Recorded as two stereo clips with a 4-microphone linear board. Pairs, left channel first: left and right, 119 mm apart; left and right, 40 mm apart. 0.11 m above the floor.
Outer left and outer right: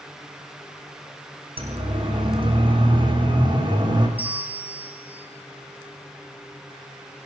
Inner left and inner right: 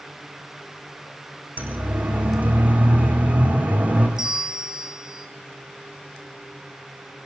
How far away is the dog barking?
No dog barking in this recording.